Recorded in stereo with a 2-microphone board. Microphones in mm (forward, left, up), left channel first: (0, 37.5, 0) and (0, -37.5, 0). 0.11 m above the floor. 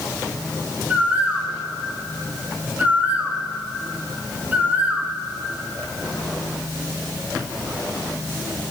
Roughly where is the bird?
Right.